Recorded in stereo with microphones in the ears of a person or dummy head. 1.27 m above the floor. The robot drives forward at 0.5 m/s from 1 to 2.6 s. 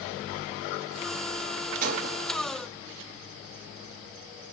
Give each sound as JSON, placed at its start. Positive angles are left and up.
{"t": 1.8, "sound": "breaking glass", "side_deg": -45, "distance_m": 2.0}